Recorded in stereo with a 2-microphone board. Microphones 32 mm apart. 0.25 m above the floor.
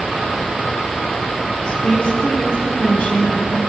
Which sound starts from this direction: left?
A woman speaking, at 1.7 s.